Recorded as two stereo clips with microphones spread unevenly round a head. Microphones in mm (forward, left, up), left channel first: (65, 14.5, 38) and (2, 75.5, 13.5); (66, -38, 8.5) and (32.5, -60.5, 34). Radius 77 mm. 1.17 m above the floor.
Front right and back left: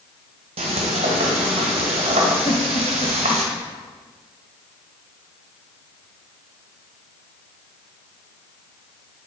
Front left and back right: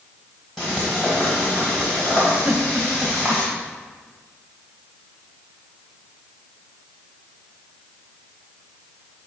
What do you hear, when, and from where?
0.6 s frying: 150° left, 1.4 m
2.5 s a giggle: 85° right, 0.8 m